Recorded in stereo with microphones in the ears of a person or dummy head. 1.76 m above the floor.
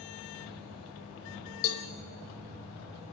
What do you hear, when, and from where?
1.6 s a cowbell: 65° left (ahead or behind), 1.2 m